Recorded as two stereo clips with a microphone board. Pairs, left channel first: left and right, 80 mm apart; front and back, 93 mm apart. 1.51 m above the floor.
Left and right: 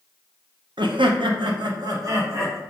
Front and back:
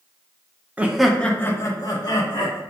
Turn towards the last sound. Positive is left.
turn(degrees=-35)